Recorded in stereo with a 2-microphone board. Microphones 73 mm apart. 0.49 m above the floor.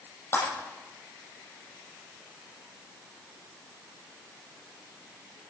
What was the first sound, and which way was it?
Breaking glass, 30° left (ahead or behind).